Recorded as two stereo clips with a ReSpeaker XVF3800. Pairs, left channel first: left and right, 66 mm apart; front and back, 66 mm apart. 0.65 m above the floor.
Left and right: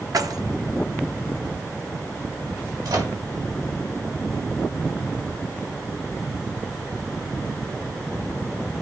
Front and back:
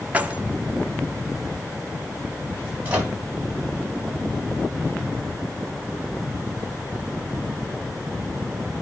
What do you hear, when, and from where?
0.1 s keys jangling: 110° right, 1.0 m
2.9 s a microwave: 110° right, 3.5 m